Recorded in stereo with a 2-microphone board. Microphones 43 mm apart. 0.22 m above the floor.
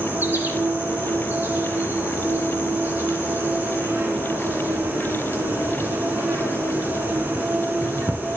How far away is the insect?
About 2 m.